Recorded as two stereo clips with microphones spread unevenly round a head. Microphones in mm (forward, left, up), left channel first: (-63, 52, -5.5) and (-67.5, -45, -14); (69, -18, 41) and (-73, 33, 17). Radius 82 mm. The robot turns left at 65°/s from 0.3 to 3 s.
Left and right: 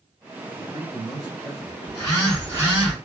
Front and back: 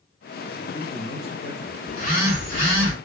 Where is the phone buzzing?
30° left, 2.5 m; by 2.9 s 40° right, 2.5 m.